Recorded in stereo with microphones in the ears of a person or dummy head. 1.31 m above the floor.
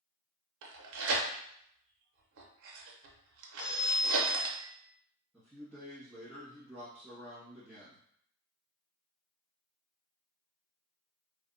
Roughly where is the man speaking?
Centre.